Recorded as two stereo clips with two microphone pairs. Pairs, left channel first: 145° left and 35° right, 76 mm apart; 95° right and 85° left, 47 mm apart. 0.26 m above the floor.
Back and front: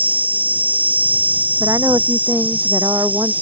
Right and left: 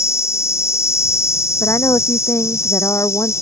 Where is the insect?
100° right.